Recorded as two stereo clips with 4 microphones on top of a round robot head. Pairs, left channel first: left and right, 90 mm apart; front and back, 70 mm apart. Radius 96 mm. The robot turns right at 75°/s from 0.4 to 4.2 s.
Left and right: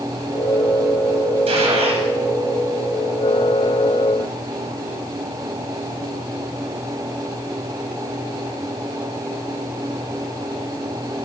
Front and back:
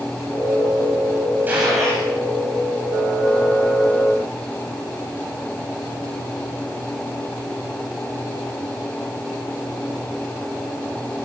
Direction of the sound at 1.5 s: 110° right.